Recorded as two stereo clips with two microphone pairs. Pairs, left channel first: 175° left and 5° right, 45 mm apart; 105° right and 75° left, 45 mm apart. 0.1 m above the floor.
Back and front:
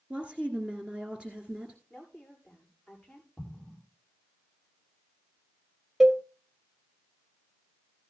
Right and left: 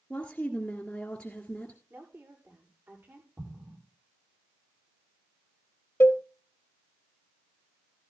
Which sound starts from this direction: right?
A cowbell, at 6.0 s.